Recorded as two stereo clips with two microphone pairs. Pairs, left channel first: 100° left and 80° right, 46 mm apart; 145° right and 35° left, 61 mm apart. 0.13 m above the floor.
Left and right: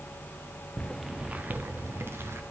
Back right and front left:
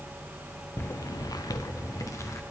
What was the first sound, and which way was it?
Footsteps, 160° left.